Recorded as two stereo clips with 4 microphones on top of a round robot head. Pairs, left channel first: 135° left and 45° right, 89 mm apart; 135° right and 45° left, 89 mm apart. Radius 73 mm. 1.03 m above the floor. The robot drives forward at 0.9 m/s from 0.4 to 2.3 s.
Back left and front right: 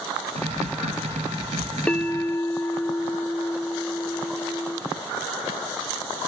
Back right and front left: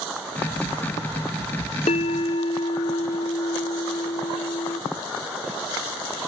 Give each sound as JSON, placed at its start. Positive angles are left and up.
{"t": 1.9, "sound": "a bell", "azimuth_deg": -150, "distance_m": 0.6}